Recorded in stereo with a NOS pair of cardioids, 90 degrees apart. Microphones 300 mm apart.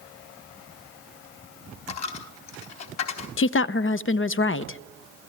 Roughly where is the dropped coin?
Ahead left.